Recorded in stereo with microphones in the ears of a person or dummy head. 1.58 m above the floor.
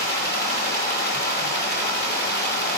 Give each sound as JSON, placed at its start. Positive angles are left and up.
{"t": 0.0, "sound": "running water", "side_deg": 70, "distance_m": 5.5}